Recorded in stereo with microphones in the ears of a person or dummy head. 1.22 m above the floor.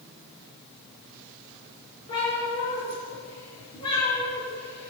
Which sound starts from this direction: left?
A cat meowing, at 2.1 s.